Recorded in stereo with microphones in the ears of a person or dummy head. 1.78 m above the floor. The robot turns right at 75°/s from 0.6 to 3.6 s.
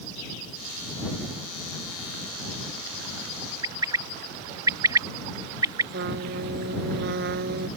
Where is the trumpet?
60° right (ahead or behind).